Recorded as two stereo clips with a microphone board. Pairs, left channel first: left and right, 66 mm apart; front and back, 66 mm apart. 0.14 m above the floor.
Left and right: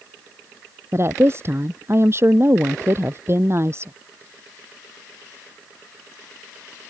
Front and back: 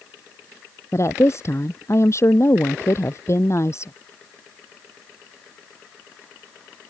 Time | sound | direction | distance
0.9 | a woman speaking | 45° right | ?